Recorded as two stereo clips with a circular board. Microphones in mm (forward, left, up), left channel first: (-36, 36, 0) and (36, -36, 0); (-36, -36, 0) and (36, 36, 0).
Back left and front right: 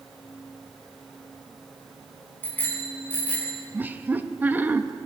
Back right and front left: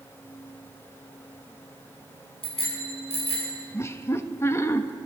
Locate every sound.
2.4 s a bicycle bell: 155° right, 4.5 m; by 3.5 s 150° right, 5.5 m
3.7 s laughter: 100° right, 0.7 m